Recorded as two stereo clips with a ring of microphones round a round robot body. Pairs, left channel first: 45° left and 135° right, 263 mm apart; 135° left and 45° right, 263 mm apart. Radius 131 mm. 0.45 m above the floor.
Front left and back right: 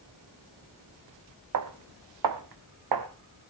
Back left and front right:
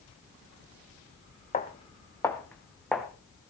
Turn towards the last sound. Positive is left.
turn(degrees=-135)